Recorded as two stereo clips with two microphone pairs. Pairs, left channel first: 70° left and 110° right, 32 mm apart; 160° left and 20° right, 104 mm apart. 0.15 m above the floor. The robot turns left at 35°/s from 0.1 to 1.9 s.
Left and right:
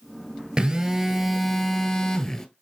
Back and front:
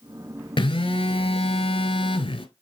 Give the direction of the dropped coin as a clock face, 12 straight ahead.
I don't hear a dropped coin.